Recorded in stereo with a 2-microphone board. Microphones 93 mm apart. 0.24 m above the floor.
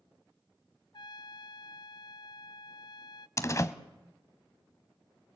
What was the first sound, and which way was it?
A trumpet, 55° left (ahead or behind).